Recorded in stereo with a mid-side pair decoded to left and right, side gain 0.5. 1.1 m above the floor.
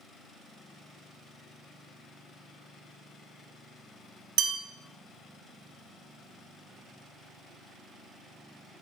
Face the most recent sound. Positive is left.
turn(degrees=-65)